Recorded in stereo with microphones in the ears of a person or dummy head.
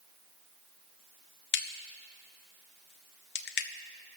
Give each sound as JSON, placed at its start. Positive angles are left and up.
{"t": 1.5, "sound": "a crack", "side_deg": 55, "distance_m": 0.7}